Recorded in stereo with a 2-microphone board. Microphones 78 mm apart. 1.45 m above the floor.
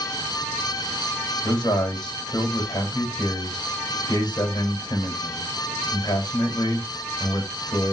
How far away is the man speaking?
About 2.5 m.